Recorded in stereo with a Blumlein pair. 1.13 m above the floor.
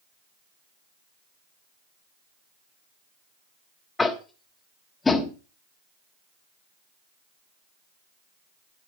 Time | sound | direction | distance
4.0 | tapping | 10° left | 1.2 m